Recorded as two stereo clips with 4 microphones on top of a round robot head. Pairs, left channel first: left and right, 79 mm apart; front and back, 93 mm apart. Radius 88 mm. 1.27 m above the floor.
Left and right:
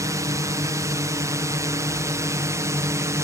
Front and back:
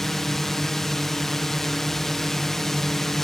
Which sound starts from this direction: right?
A drone, at 0.0 s.